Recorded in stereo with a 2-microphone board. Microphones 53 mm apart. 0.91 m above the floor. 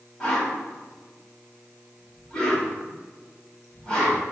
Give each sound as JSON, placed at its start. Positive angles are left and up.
{"t": 0.2, "sound": "a whoosh", "side_deg": 20, "distance_m": 2.5}